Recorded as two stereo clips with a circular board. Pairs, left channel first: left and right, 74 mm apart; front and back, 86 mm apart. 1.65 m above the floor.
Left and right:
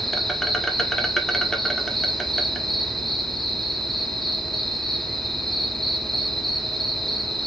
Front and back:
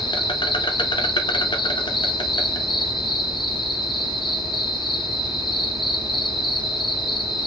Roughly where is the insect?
Ahead.